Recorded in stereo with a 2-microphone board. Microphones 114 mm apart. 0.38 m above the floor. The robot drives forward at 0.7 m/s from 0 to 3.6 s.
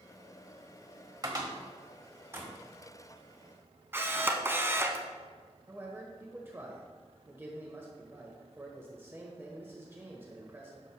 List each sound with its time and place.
1.2 s a cupboard door: 30° right (ahead or behind), 1.3 m; by 2.5 s 20° right (ahead or behind), 2.0 m
3.9 s a camera shutter: 20° right (ahead or behind), 0.8 m
5.7 s a man speaking: 20° right (ahead or behind), 1.4 m